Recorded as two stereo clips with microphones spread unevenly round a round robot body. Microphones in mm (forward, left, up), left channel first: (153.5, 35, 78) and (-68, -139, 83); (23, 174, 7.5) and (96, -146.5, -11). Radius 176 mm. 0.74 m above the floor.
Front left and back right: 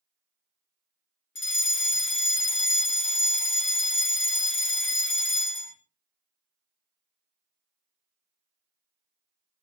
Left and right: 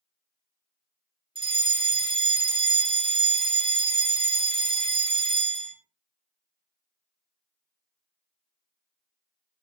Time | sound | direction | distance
1.4 | a fire alarm | 5° right | 3.5 m